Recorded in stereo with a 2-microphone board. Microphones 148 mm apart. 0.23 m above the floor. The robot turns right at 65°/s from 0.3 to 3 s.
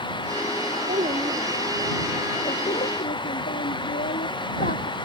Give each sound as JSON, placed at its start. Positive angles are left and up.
{"t": 0.9, "sound": "a child speaking", "azimuth_deg": -65}